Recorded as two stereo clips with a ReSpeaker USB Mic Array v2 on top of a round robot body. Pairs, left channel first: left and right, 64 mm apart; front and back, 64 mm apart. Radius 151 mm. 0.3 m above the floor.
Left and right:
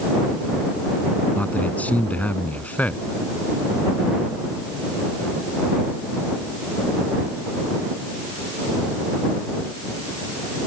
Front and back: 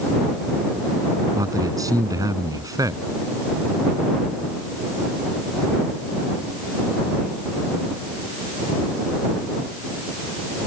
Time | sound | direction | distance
1.4 | a man speaking | 155° left | ?